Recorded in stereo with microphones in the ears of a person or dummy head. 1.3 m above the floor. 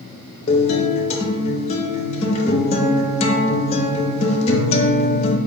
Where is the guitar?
25° left (ahead or behind), 0.5 m.